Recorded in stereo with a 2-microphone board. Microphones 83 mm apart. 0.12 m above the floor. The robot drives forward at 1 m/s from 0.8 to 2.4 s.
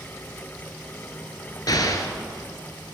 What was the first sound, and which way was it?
An explosion, 50° left (ahead or behind).